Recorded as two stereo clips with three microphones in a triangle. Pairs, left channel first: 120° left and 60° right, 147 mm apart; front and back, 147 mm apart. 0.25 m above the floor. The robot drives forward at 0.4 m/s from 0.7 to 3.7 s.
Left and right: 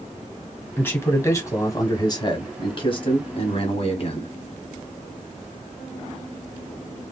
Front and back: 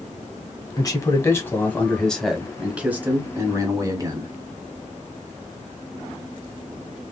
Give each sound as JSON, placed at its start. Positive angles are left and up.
{"t": 0.8, "sound": "a man speaking", "azimuth_deg": 50, "distance_m": 1.3}